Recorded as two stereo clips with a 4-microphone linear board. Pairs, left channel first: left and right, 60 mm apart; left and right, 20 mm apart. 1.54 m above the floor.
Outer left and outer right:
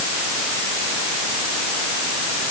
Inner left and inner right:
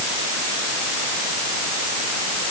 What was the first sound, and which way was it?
Only background noise.